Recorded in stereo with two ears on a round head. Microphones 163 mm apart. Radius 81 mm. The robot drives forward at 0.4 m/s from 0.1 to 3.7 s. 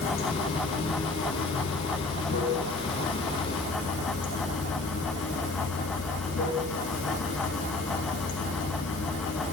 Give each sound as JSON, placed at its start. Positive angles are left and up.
{"t": 0.0, "sound": "running water", "side_deg": 85, "distance_m": 6.0}